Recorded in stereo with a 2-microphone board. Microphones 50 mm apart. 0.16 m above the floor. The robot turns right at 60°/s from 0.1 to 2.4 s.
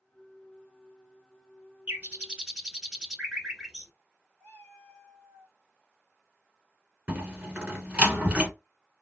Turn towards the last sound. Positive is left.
turn(degrees=-30)  # may be behind; listen again after turning